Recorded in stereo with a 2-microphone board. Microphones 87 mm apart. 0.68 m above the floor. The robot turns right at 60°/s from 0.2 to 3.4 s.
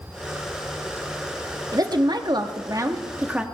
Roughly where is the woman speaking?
Behind right.